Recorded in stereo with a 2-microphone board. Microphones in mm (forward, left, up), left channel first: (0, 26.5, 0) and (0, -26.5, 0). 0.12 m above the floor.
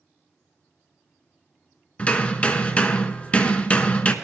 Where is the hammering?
25° left (ahead or behind), 0.9 m.